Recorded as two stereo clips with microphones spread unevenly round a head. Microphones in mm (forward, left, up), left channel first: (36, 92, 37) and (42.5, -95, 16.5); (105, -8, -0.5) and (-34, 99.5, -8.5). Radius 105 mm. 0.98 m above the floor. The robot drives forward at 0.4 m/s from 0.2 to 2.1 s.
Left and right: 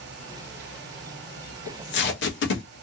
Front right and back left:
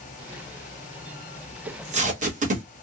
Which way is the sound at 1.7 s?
95° left.